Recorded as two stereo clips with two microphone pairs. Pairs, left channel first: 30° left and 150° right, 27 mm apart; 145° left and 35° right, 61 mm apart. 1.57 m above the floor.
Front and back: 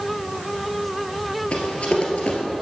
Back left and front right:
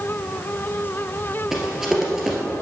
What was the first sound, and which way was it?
Running footsteps, 45° left.